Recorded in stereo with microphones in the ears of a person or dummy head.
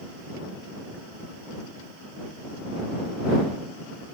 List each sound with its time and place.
Only background noise.